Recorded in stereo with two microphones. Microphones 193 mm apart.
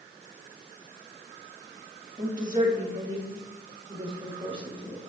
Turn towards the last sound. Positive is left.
turn(degrees=-25)  # may be behind; listen again after turning